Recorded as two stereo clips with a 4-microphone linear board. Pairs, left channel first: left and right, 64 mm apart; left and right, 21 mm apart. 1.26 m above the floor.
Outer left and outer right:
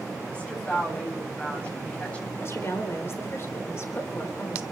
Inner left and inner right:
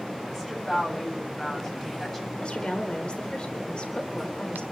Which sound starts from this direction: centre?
A woman speaking, at 0.3 s.